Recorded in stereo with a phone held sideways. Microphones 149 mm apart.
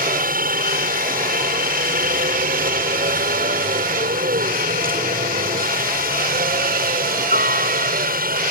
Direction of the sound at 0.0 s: 65° right (ahead or behind).